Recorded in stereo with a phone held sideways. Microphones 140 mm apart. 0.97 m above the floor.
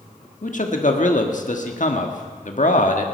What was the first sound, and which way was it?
A man speaking, 65° left (ahead or behind).